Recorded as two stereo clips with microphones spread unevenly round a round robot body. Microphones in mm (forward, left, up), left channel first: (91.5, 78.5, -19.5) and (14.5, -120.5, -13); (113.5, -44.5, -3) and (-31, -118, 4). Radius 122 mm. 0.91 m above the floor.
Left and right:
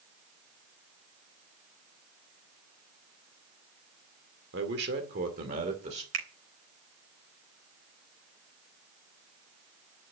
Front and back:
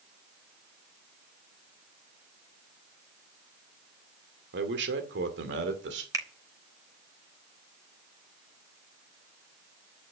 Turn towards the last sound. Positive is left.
turn(degrees=-85)